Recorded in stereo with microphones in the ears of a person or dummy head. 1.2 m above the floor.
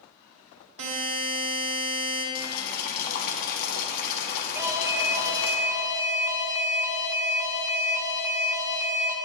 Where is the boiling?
50° left (ahead or behind), 1.5 m.